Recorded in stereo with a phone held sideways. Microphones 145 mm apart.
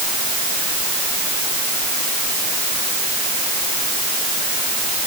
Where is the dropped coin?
I don't hear a dropped coin.